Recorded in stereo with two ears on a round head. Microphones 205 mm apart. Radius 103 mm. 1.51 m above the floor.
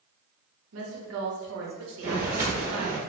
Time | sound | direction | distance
0.7 | a woman speaking | 65° right (ahead or behind) | 0.9 m
2.0 | footsteps | 15° right (ahead or behind) | 1.6 m